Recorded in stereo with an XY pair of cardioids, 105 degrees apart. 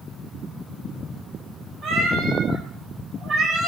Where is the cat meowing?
65° right, 6 m; by 3.7 s 55° right, 6.5 m.